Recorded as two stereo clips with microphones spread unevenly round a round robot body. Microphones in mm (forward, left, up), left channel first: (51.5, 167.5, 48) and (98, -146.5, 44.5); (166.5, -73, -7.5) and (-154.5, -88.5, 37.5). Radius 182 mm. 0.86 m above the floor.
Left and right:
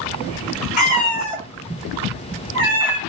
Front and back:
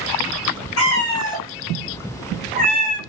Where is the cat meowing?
45° left, 0.8 m; by 3.0 s 125° right, 1.3 m.